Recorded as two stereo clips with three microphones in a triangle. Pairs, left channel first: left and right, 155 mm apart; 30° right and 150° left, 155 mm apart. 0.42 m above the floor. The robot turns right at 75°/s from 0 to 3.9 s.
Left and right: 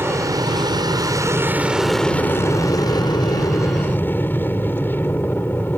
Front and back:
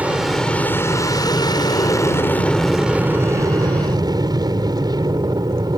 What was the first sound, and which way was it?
An aircraft, 145° right.